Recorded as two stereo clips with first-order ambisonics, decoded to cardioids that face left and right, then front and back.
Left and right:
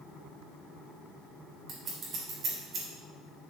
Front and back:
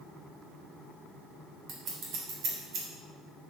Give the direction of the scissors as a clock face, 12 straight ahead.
5 o'clock.